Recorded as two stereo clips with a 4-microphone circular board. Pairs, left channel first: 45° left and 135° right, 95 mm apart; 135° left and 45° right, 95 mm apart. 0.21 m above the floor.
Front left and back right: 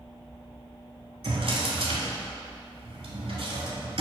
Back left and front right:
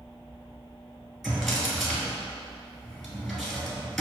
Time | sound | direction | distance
1.2 | a drawer | 135° right | 0.8 m